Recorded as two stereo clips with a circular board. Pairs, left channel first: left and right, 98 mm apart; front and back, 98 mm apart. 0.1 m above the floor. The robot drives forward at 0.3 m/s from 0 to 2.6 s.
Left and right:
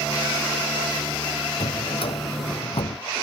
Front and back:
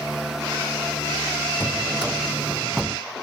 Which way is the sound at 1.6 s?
95° left.